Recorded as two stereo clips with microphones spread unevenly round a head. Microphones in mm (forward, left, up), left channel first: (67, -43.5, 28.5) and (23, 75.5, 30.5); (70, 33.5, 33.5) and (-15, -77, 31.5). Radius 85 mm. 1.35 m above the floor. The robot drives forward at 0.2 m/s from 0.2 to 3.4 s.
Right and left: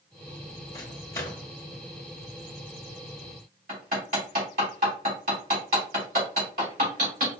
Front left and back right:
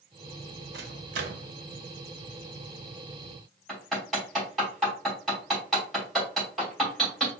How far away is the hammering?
About 3 m.